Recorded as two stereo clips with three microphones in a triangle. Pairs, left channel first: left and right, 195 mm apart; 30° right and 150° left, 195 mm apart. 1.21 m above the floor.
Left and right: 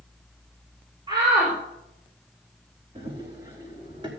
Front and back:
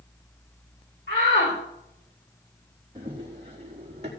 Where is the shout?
25° right, 4 m.